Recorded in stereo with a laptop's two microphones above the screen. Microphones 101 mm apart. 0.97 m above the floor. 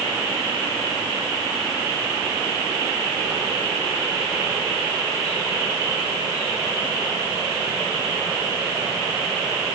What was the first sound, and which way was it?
Only background noise.